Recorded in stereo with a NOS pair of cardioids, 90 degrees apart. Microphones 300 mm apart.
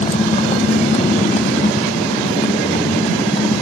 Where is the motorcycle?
20° left; by 3.6 s 15° left.